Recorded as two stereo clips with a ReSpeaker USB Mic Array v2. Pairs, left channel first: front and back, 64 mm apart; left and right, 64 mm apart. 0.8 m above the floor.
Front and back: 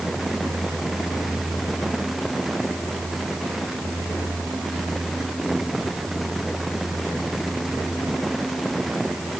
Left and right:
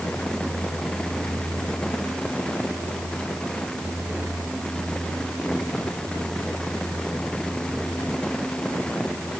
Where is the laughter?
I don't hear laughter.